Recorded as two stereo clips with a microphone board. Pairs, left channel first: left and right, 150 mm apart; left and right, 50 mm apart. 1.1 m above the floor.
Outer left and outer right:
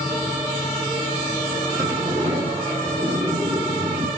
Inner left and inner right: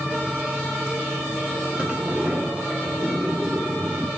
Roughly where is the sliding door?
Right.